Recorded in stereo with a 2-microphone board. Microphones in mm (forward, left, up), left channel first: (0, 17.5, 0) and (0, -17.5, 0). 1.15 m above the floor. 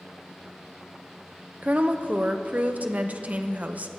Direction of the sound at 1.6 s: 45° right (ahead or behind).